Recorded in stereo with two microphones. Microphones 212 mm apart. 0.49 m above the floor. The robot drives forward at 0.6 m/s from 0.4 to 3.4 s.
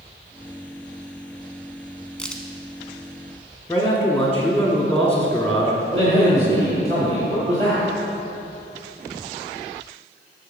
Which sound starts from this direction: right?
A man speaking, at 5.9 s.